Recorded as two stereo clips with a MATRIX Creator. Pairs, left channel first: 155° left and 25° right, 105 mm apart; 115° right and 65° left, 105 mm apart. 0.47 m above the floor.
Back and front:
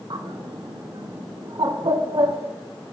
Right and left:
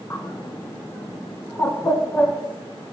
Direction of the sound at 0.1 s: 55° right.